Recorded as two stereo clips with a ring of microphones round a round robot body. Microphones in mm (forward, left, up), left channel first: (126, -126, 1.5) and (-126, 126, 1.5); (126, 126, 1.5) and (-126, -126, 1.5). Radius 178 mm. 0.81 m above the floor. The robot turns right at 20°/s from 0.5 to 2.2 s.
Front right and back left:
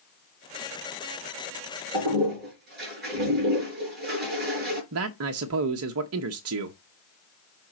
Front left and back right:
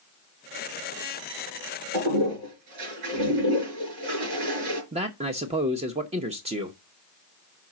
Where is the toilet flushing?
165° right, 4.5 m; by 4.8 s 160° right, 4.5 m.